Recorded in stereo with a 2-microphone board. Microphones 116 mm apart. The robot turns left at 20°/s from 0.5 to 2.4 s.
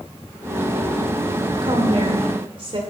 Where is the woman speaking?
45° right (ahead or behind), 2 m; by 2.8 s 50° right (ahead or behind), 2 m.